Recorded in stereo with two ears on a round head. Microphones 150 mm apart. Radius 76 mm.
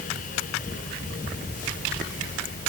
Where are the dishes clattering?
No dishes clattering in this recording.